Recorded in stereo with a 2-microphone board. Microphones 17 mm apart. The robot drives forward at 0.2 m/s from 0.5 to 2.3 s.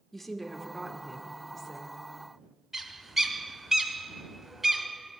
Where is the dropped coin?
No dropped coin in this recording.